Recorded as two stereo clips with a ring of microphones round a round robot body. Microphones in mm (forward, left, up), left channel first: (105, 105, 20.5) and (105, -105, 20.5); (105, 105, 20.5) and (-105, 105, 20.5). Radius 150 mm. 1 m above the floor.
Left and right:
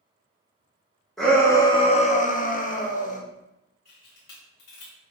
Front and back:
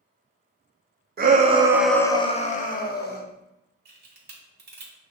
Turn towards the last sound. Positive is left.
turn(degrees=145)